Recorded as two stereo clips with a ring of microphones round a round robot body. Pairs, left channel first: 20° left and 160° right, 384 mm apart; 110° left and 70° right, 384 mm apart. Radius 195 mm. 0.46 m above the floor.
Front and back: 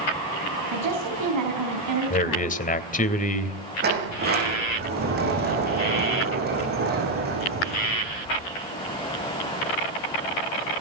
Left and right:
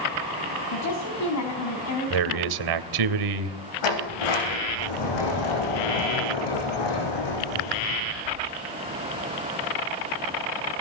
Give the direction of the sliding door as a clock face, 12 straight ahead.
7 o'clock.